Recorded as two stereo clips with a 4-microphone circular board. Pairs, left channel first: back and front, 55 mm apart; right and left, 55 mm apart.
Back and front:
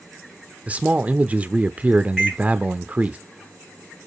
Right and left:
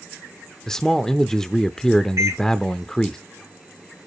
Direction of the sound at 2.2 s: 90° left.